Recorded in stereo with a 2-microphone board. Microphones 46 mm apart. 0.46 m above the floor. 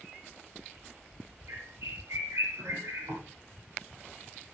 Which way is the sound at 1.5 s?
80° right.